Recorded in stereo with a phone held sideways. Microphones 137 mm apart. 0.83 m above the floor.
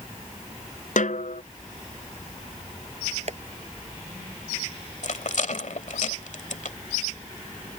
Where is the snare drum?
70° left (ahead or behind).